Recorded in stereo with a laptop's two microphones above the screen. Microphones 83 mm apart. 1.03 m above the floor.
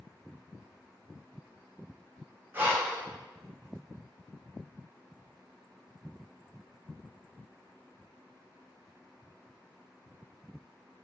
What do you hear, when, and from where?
2.5 s breathing: 25° right (ahead or behind), 0.6 m